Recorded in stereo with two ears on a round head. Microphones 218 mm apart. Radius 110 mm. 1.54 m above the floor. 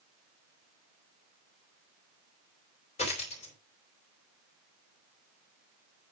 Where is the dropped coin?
30° left (ahead or behind), 3 m.